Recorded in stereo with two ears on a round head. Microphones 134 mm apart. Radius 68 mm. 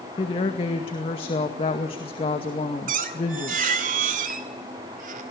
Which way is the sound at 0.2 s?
35° left (ahead or behind).